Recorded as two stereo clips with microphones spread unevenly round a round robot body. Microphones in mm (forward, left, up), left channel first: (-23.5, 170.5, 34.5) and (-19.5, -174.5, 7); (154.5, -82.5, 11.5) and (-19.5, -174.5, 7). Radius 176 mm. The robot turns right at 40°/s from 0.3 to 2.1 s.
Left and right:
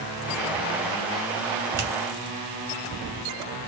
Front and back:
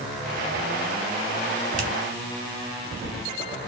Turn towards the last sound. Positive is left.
turn(degrees=-115)